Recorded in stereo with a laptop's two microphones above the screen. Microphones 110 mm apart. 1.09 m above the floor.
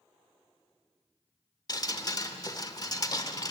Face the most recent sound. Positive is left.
turn(degrees=35)  # may be behind; listen again after turning